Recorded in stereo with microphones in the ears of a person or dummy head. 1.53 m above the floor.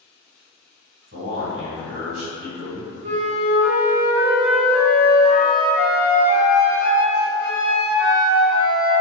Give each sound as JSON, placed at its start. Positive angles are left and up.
{"t": 1.1, "sound": "a man speaking", "side_deg": -60, "distance_m": 1.8}
{"t": 3.0, "sound": "a flute", "side_deg": -70, "distance_m": 1.2}